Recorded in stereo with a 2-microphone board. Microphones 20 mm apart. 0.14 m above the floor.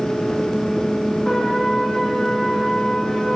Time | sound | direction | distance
1.2 | a trumpet | 50° left (ahead or behind) | 7.5 m